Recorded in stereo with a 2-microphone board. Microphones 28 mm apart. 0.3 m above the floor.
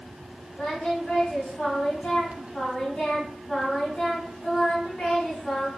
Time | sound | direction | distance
0.6 | singing | 55° left (ahead or behind) | 2 m